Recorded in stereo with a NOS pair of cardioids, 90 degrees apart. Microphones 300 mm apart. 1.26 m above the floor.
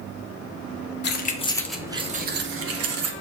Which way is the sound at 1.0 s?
40° left.